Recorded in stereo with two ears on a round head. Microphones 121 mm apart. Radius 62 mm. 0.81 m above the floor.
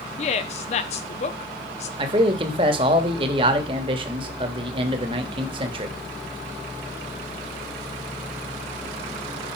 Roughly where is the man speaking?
Right.